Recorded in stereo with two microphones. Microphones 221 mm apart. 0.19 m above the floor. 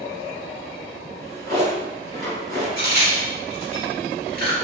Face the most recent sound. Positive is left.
turn(degrees=-50)  # may be behind; listen again after turning